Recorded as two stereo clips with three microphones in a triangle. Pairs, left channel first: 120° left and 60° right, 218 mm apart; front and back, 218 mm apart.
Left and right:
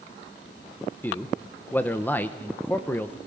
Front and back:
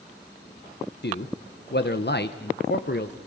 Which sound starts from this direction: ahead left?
A man speaking, at 1.0 s.